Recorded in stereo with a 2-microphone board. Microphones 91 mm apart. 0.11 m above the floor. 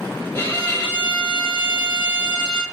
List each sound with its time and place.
0.3 s a violin: 25° left (ahead or behind), 1.3 m